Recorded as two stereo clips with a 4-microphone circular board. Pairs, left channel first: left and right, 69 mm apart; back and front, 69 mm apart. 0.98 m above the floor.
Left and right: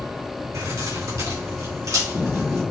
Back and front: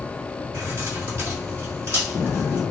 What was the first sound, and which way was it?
Keys jangling, 55° right.